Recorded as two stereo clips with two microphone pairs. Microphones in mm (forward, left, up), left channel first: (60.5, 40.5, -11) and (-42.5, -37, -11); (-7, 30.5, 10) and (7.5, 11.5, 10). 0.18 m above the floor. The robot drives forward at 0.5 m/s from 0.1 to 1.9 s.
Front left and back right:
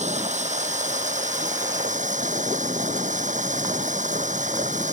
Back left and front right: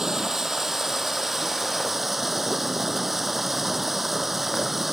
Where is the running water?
120° right; by 4.9 s 130° right.